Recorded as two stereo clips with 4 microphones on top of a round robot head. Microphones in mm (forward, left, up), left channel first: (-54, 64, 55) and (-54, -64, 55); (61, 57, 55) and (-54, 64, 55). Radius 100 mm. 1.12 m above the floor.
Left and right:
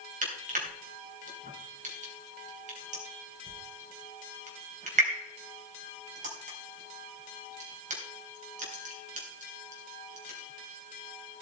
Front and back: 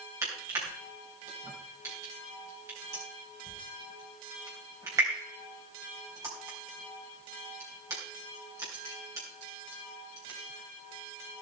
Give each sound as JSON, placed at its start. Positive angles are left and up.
{"t": 0.2, "sound": "crushing", "azimuth_deg": -110, "distance_m": 3.5}